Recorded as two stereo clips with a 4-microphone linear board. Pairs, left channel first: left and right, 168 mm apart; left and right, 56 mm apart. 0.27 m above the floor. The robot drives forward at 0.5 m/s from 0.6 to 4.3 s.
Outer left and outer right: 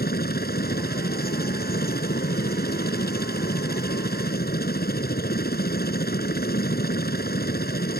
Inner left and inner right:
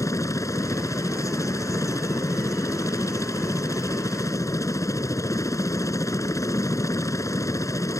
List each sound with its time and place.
0.0 s a helicopter: 65° left (ahead or behind); by 8.0 s 70° left (ahead or behind)